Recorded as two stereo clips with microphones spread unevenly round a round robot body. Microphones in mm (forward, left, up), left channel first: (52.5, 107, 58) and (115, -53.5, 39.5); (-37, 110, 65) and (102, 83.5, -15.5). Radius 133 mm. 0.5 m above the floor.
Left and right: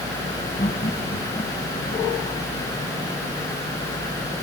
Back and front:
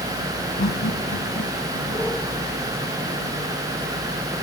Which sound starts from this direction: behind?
Laughter, at 0.6 s.